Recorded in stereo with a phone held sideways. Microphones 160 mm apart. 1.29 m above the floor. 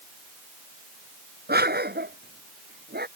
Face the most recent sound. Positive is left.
turn(degrees=-85)